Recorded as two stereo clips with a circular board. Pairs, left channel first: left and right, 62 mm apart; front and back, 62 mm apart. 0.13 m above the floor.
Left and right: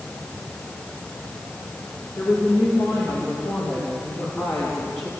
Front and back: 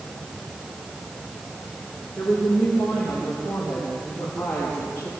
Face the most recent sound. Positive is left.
turn(degrees=55)